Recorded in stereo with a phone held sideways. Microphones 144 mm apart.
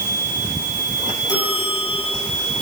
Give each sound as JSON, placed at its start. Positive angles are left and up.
{"t": 1.3, "sound": "a bell", "side_deg": 25, "distance_m": 8.0}